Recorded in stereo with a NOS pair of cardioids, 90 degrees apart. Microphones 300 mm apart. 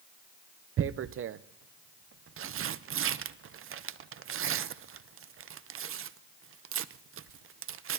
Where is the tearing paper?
45° right, 0.7 m.